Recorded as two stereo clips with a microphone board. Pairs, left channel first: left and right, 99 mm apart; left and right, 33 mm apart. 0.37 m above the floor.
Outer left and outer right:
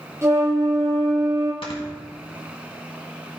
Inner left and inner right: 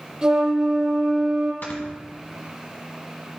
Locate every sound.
0.2 s a flute: 30° right (ahead or behind), 1.8 m
1.6 s snoring: 70° left (ahead or behind), 1.5 m